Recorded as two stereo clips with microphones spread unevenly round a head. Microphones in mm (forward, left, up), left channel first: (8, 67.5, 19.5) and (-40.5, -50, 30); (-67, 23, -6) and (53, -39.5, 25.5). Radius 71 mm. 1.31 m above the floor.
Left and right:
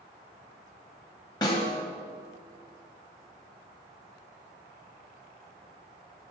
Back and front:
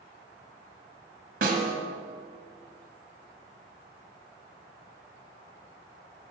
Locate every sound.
1.4 s a snare drum: straight ahead, 1.6 m